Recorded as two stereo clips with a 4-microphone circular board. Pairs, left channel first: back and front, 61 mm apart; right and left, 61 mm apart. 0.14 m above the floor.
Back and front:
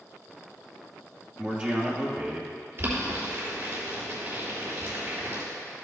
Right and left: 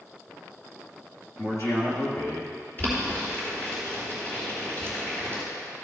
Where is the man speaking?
65° right, 2.5 m.